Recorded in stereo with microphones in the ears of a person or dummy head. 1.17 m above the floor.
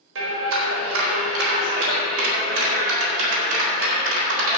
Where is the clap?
75° right (ahead or behind), 3.5 m.